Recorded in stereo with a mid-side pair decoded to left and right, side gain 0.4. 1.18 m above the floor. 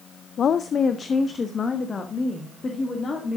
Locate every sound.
0.4 s a woman speaking: 60° left, 0.5 m; by 3.4 s 40° left, 2.5 m